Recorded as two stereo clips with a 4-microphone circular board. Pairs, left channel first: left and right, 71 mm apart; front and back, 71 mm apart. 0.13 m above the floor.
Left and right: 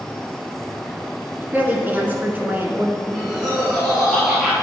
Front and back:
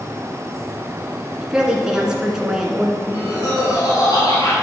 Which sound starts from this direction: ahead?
Laughter, at 3.0 s.